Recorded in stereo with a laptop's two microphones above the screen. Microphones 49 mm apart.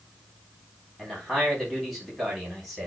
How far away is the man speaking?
About 3.5 m.